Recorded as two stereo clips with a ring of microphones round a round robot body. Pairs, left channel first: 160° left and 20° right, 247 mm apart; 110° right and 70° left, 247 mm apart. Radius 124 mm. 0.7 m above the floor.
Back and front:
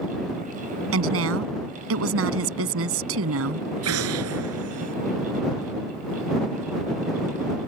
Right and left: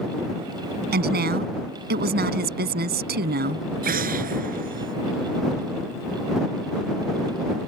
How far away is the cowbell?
I don't hear a cowbell.